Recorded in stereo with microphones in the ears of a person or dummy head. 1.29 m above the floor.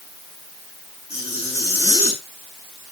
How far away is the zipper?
About 6.5 m.